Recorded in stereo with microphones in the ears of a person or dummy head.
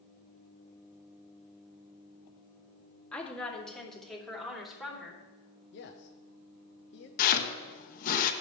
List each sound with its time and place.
3.1 s a woman speaking: 10° left (ahead or behind), 2 m; by 5.2 s centre (ahead or behind), 3.5 m
5.7 s a man speaking: 50° left (ahead or behind), 1.0 m
7.2 s chopping: 45° left (ahead or behind), 1.1 m